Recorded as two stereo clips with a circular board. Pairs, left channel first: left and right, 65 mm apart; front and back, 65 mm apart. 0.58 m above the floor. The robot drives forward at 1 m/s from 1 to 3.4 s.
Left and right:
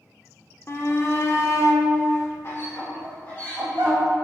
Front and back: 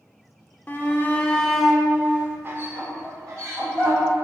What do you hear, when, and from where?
0.7 s a shout: 55° left, 1.4 m; by 4.0 s 150° left, 2 m